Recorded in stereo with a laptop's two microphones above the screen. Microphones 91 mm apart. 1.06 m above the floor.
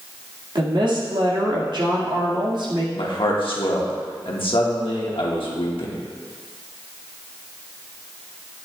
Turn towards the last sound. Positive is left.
turn(degrees=70)  # may be behind; listen again after turning